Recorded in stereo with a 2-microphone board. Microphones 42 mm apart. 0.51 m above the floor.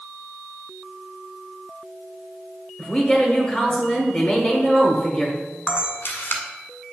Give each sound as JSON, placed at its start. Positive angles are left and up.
{"t": 2.8, "sound": "a woman speaking", "side_deg": 25, "distance_m": 1.4}
{"t": 5.7, "sound": "a camera shutter", "side_deg": 75, "distance_m": 1.1}